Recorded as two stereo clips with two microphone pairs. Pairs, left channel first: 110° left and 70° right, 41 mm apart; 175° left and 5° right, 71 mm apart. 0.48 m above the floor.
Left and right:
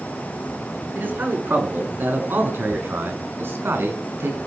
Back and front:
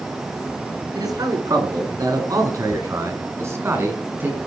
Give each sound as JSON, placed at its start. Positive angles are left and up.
{"t": 0.9, "sound": "a man speaking", "azimuth_deg": -30, "distance_m": 6.5}